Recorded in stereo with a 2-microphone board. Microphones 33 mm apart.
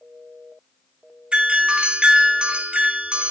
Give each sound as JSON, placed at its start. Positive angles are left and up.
{"t": 1.3, "sound": "a doorbell", "side_deg": -40, "distance_m": 3.0}